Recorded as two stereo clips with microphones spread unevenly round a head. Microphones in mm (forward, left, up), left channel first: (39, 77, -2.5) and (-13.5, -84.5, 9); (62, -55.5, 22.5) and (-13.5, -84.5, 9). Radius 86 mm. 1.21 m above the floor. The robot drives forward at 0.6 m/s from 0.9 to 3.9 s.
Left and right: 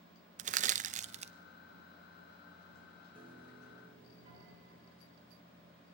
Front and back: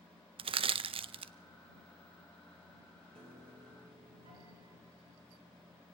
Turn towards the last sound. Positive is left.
turn(degrees=-170)